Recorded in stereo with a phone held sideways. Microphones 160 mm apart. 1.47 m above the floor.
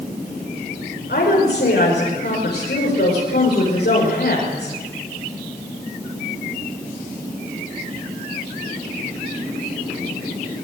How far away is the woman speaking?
About 6 m.